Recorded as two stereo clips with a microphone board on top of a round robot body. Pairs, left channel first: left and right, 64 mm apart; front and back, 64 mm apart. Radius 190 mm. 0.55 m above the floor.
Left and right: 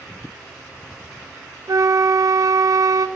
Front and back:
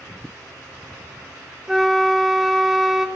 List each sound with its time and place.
1.7 s a flute: 95° right, 1.7 m